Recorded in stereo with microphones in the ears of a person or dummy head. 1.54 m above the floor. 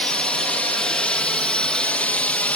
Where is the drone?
5° left (ahead or behind); by 2.6 s 10° left (ahead or behind).